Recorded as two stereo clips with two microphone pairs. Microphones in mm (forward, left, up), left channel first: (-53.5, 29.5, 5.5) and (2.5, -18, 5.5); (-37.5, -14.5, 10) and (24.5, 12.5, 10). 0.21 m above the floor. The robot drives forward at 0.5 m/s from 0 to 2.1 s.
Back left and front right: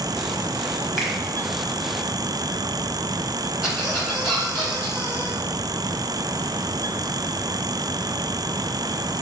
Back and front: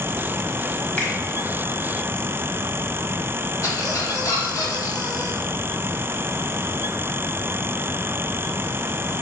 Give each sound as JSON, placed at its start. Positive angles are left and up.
{"t": 1.0, "sound": "a finger snap", "azimuth_deg": -135, "distance_m": 1.1}
{"t": 3.6, "sound": "a squeak", "azimuth_deg": -130, "distance_m": 1.7}